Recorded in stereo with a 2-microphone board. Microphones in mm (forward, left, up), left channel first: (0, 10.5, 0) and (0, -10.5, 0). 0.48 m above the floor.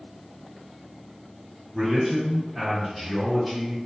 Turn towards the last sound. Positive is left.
turn(degrees=0)  # may be behind; listen again after turning